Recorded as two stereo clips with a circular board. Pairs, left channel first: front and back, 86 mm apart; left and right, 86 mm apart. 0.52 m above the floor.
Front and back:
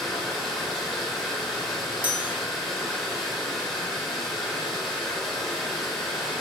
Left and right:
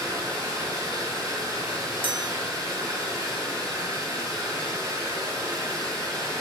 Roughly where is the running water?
Right.